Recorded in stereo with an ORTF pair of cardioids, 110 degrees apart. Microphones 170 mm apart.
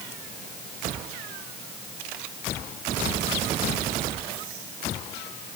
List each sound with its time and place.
Only background noise.